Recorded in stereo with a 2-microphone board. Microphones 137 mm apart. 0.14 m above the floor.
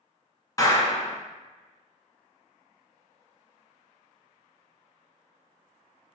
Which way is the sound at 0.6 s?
25° left (ahead or behind).